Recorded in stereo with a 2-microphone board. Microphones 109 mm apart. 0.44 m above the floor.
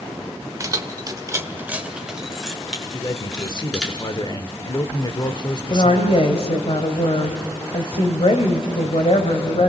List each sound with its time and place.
0.6 s keys jangling: 30° right (ahead or behind), 1.1 m; by 3.9 s 5° left (ahead or behind), 4.5 m
2.9 s a man speaking: 40° left (ahead or behind), 1.0 m
5.7 s a woman speaking: 60° left (ahead or behind), 2 m